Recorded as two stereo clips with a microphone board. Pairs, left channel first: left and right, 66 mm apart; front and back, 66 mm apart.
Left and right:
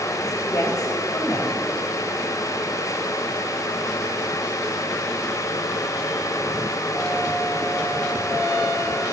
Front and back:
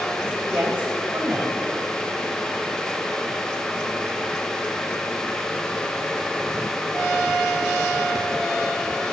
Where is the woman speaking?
115° left, 3.5 m.